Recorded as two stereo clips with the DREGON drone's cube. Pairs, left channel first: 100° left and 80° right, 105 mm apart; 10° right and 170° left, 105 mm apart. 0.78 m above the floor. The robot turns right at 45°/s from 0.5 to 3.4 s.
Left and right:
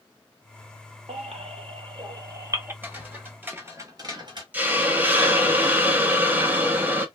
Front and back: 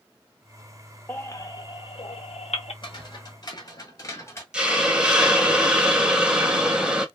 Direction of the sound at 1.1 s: 85° right.